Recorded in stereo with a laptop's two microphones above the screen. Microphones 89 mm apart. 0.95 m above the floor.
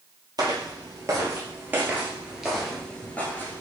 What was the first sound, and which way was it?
Footsteps, 50° right (ahead or behind).